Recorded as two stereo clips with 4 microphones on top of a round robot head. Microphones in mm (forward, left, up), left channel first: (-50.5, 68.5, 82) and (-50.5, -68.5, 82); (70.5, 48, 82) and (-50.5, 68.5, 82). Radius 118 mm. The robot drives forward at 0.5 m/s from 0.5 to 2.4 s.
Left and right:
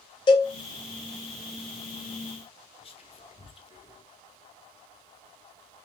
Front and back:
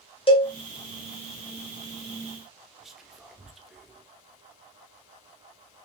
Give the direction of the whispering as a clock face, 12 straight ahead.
9 o'clock.